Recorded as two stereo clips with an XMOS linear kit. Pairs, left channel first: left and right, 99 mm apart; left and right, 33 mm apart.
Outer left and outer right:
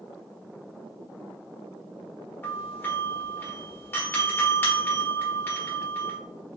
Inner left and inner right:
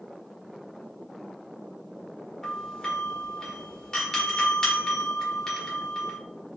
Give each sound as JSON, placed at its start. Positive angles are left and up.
{"t": 2.4, "sound": "a doorbell", "side_deg": 20, "distance_m": 1.4}